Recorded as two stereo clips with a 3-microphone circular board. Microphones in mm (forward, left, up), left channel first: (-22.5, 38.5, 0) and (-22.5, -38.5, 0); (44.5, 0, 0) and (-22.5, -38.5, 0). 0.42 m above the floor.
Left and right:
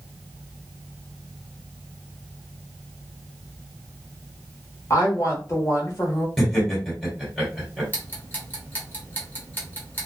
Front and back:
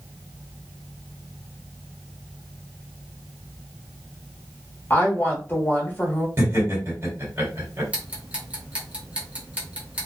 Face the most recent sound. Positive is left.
turn(degrees=145)